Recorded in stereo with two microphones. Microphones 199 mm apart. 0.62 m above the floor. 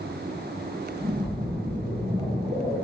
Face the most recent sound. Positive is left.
turn(degrees=-25)  # may be behind; listen again after turning